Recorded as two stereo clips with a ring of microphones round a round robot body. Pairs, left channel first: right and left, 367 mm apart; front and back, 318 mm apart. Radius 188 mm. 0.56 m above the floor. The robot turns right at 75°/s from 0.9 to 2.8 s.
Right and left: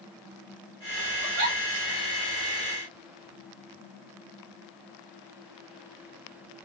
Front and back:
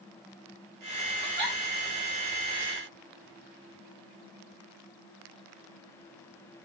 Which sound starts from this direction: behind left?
A giggle, at 1.2 s.